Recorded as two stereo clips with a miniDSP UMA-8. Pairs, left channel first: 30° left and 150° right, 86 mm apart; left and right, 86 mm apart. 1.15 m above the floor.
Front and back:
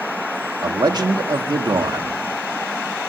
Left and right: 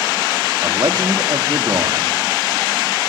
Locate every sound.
0.6 s a man speaking: 120° right, 2.5 m